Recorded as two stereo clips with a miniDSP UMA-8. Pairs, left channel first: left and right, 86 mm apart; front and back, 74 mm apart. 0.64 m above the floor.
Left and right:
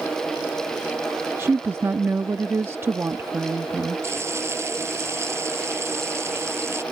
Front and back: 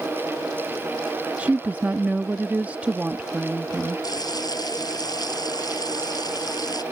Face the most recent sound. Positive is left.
turn(degrees=-30)